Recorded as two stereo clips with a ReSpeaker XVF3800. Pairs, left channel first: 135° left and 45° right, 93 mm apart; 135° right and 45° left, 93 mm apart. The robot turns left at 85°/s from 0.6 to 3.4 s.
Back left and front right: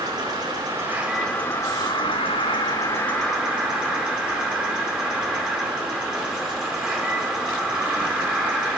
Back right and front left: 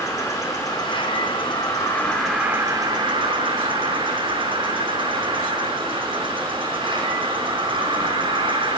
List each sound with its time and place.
0.0 s an insect: 85° right, 1.5 m; by 8.8 s 35° left, 1.5 m